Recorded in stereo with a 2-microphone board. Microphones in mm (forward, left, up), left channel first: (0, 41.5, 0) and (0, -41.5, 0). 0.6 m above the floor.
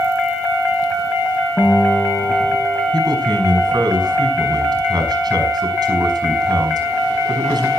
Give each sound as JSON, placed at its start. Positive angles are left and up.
{"t": 1.6, "sound": "a guitar", "side_deg": 25, "distance_m": 9.5}
{"t": 2.9, "sound": "a man speaking", "side_deg": -60, "distance_m": 5.5}